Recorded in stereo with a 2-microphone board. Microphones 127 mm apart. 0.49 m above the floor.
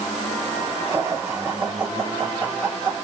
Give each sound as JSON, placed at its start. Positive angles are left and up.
{"t": 0.9, "sound": "laughter", "side_deg": -20, "distance_m": 1.7}